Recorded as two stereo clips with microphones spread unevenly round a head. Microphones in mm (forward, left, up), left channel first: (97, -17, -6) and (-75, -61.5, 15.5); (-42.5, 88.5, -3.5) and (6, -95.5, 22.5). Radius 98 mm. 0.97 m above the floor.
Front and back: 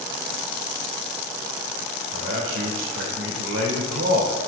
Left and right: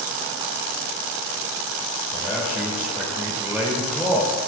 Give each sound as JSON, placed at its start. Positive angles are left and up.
{"t": 2.1, "sound": "a man speaking", "azimuth_deg": -160, "distance_m": 3.0}